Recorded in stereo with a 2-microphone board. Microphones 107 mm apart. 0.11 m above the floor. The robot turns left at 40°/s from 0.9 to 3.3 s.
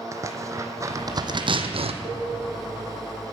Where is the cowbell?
35° right (ahead or behind), 4.5 m; by 2.3 s 45° right (ahead or behind), 4.5 m.